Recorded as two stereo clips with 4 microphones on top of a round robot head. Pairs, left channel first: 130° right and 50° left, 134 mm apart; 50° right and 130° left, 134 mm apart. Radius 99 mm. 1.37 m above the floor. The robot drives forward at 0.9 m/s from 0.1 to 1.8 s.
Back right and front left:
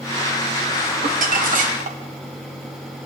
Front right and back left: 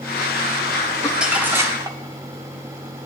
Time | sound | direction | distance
1.0 | crumpling | 40° left | 1.6 m